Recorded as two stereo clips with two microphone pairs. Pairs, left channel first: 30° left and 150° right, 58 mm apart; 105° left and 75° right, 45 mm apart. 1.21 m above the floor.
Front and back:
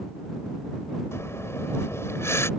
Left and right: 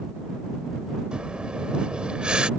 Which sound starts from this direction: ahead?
Breathing, at 1.1 s.